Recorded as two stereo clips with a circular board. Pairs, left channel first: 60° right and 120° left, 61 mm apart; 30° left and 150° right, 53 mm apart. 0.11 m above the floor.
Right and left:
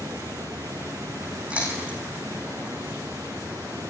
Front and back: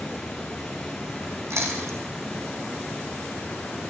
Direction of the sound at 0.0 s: 115° left.